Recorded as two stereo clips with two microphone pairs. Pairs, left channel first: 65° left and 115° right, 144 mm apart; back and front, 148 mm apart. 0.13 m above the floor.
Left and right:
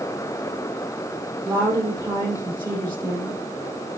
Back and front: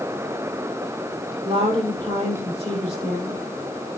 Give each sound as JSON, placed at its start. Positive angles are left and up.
{"t": 1.4, "sound": "a woman speaking", "azimuth_deg": -55, "distance_m": 4.5}